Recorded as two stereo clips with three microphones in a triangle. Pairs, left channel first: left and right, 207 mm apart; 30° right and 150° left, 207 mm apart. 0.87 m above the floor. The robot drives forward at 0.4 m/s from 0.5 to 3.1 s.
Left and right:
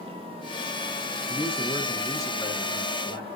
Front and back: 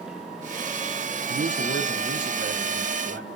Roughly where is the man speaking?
Behind left.